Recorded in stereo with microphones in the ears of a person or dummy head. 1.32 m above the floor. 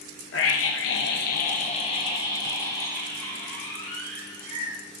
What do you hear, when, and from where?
0.3 s a scream: 65° left (ahead or behind), 1.0 m; by 4.8 s 5° left (ahead or behind), 3 m